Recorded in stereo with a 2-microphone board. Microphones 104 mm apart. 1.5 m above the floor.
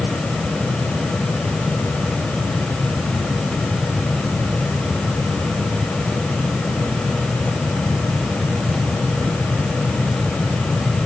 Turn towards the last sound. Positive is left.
No sound to turn to.